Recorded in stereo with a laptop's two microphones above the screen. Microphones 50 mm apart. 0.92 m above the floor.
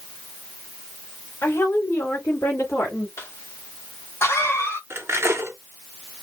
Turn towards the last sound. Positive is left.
turn(degrees=-60)  # may be behind; listen again after turning